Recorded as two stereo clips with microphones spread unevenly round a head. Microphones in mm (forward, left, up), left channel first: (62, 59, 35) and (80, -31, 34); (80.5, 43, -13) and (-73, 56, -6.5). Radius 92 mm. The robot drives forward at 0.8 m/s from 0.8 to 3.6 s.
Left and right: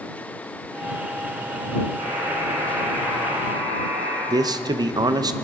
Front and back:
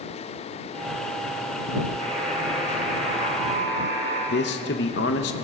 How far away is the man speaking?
About 0.8 m.